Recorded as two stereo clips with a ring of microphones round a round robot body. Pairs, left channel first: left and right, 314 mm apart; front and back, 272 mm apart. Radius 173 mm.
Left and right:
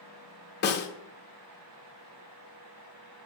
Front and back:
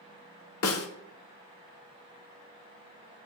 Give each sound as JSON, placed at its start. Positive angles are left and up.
{"t": 0.6, "sound": "a snare drum", "azimuth_deg": 35, "distance_m": 1.0}